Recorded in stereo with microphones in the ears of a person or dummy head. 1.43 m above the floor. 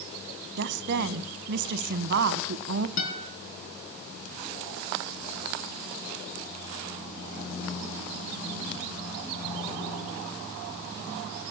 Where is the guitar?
65° left (ahead or behind), 5 m.